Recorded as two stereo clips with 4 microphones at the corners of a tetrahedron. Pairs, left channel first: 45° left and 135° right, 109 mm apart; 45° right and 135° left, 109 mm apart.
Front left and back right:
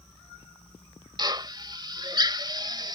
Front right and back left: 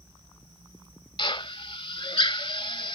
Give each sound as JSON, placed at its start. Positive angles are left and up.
{"t": 1.2, "sound": "a drill", "azimuth_deg": -85}